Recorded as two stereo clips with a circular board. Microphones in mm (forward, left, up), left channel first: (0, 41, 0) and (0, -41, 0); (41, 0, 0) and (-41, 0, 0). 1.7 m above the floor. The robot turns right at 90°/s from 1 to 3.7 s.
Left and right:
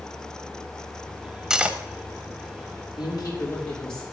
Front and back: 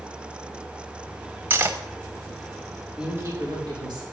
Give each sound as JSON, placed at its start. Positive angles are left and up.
{"t": 1.5, "sound": "cutlery clinking", "azimuth_deg": -165, "distance_m": 1.1}
{"t": 3.0, "sound": "a woman speaking", "azimuth_deg": 105, "distance_m": 5.5}